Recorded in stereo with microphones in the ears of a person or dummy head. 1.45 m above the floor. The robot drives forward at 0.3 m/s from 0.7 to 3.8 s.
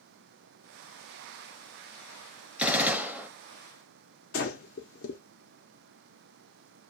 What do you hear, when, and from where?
2.6 s a gunshot: 5° right (ahead or behind), 0.7 m; by 3.3 s 10° right (ahead or behind), 0.5 m
4.3 s breathing: 55° left (ahead or behind), 0.6 m